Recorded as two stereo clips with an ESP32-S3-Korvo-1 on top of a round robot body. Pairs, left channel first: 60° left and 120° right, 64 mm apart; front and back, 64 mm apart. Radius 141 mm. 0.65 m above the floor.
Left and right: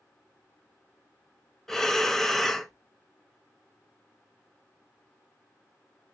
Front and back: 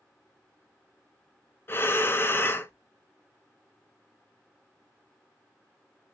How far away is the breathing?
About 0.7 m.